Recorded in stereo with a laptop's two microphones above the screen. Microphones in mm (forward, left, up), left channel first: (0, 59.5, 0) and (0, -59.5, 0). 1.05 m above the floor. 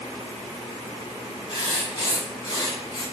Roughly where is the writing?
Left.